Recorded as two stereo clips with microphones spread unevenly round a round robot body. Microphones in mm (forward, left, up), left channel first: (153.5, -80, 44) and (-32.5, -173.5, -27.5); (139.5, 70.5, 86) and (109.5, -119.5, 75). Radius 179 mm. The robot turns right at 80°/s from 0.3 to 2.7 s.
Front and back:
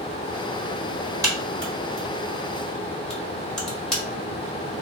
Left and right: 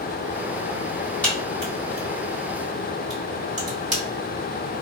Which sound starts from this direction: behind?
A crack, at 1.2 s.